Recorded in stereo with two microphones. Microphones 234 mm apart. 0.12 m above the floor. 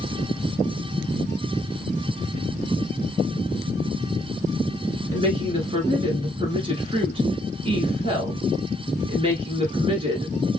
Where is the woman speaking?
25° right (ahead or behind), 1.2 m.